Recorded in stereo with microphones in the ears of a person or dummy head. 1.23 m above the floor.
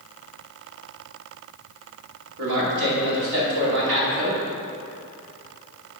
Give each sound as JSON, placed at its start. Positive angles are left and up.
{"t": 2.4, "sound": "a man speaking", "side_deg": -70, "distance_m": 2.5}